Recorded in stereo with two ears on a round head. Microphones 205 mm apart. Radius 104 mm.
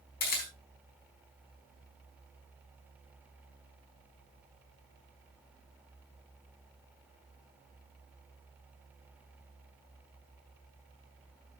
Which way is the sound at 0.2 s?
45° left (ahead or behind).